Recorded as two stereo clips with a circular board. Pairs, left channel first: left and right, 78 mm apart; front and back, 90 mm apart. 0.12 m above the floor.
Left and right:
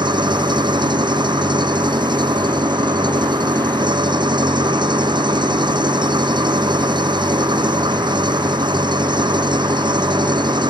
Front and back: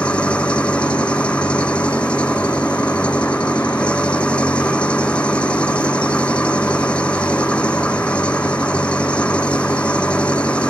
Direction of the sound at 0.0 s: 75° right.